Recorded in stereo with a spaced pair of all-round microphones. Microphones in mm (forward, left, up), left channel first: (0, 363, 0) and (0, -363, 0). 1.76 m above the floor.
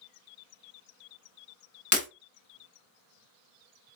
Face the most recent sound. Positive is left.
turn(degrees=15)  # may be behind; listen again after turning